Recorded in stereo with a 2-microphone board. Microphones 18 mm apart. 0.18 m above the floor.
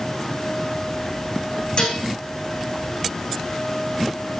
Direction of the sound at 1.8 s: 55° left (ahead or behind).